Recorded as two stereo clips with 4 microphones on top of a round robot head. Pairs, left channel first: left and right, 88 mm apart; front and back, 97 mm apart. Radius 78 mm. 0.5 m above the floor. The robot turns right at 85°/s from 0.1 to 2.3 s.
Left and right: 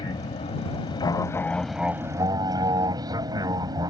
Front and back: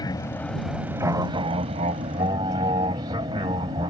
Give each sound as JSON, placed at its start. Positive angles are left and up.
{"t": 0.0, "sound": "an aircraft", "azimuth_deg": 45}